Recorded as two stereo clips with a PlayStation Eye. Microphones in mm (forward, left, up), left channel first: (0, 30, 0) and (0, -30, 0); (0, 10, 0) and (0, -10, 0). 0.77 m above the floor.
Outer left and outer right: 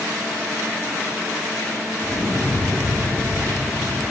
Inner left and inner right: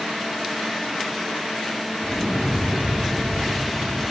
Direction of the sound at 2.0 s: 25° left (ahead or behind).